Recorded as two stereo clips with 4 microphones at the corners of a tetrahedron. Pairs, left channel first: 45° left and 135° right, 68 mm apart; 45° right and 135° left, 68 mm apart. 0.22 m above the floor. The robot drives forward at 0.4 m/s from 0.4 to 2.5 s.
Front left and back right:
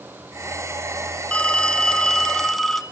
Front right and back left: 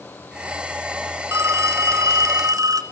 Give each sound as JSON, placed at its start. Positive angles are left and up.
{"t": 1.3, "sound": "a phone ringing", "azimuth_deg": 115, "distance_m": 1.5}